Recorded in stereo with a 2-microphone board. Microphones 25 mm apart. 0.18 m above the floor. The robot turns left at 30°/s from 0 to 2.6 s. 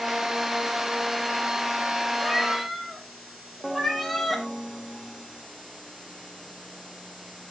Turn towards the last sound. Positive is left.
turn(degrees=5)  # may be behind; listen again after turning